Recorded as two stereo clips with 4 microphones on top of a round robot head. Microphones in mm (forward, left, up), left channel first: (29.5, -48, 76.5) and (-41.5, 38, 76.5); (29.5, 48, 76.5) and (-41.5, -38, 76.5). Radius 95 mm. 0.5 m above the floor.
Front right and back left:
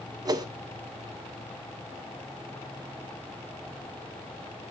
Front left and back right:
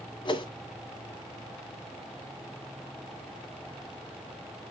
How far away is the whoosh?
About 1.9 m.